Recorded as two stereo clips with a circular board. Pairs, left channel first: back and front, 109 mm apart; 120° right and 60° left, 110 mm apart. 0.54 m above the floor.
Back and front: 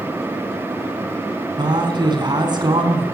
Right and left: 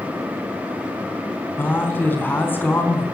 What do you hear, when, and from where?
1.6 s a man speaking: 45° right, 4 m